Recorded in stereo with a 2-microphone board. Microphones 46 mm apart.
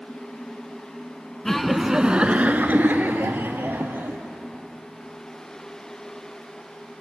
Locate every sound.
1.4 s laughter: 10° left (ahead or behind), 1.1 m; by 4.2 s 50° right (ahead or behind), 3 m